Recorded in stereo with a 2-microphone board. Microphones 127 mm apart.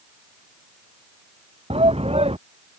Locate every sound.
1.7 s a shout: 50° right (ahead or behind)